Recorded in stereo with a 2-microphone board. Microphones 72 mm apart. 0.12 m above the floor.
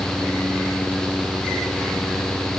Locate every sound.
Only background noise.